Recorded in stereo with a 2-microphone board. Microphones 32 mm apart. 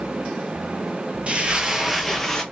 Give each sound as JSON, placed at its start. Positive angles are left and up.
{"t": 1.3, "sound": "footsteps", "side_deg": -45, "distance_m": 0.8}